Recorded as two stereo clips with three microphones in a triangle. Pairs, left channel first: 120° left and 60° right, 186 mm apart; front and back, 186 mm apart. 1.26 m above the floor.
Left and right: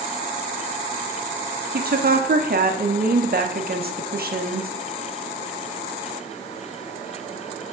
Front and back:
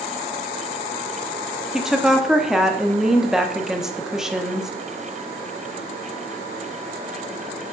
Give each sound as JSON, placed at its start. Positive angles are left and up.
{"t": 1.7, "sound": "a woman speaking", "azimuth_deg": -90, "distance_m": 0.9}